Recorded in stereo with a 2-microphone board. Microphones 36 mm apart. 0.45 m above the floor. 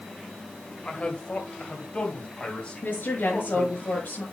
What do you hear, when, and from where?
0.8 s a man speaking: 35° left (ahead or behind), 2.0 m
2.8 s a woman speaking: 70° left (ahead or behind), 6.5 m